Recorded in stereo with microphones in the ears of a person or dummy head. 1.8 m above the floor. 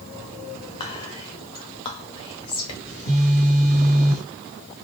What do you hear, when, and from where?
0.8 s whispering: 30° left (ahead or behind), 0.6 m
2.9 s a phone buzzing: 35° right (ahead or behind), 2.0 m